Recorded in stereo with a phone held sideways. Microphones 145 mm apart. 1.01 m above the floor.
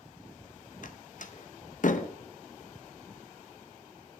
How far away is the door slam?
About 0.8 m.